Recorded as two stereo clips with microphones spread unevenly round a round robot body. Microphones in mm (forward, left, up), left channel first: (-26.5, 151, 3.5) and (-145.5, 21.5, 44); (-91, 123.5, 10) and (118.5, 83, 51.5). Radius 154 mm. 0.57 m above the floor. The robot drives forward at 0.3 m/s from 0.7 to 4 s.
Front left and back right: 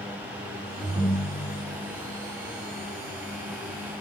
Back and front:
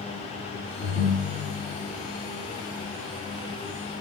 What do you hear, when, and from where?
0.8 s a ringtone: 150° left, 0.6 m; by 1.8 s 160° left, 0.8 m